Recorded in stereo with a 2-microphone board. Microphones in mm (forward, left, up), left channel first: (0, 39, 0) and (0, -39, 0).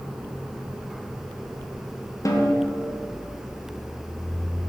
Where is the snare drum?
45° left (ahead or behind), 1.0 m.